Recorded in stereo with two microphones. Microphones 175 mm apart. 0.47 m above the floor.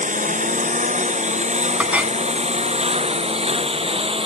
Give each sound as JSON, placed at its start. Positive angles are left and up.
{"t": 0.0, "sound": "a lawn mower", "side_deg": -45}
{"t": 1.8, "sound": "a clink", "side_deg": -10}